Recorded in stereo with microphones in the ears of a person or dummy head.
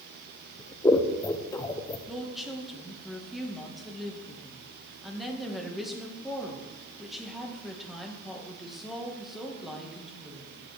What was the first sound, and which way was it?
Scissors, 10° left (ahead or behind).